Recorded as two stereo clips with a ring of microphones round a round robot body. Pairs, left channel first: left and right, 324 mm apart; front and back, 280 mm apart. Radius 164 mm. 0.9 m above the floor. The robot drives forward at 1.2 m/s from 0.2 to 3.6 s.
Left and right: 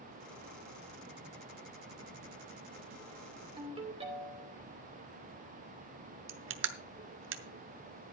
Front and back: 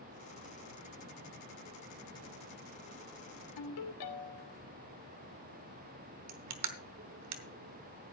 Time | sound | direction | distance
3.6 | a ringtone | 15° right | 2.5 m
6.3 | crushing | 140° right | 0.9 m